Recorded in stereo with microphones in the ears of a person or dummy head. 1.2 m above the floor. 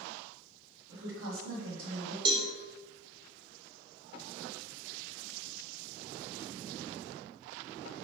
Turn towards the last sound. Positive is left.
turn(degrees=-20)  # may be behind; listen again after turning